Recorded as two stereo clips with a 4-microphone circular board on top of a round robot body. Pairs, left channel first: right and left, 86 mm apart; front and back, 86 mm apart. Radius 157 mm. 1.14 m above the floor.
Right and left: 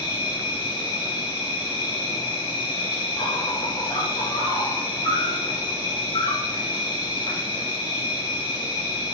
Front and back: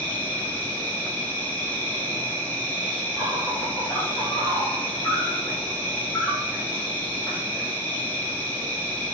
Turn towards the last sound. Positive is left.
turn(degrees=-70)